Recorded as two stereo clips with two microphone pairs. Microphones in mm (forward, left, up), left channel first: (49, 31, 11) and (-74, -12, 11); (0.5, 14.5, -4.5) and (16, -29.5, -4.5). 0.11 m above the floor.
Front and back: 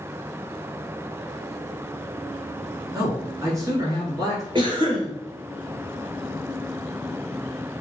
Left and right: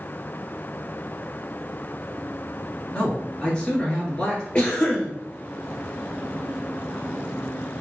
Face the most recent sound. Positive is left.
turn(degrees=170)